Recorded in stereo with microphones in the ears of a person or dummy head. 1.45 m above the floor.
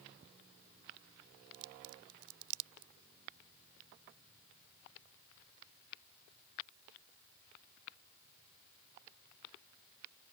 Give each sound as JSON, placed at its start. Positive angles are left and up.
{"t": 1.5, "sound": "a crack", "side_deg": -85}